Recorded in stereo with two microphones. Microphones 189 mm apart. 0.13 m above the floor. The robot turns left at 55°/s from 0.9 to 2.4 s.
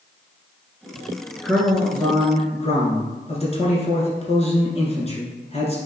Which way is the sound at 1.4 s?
Straight behind.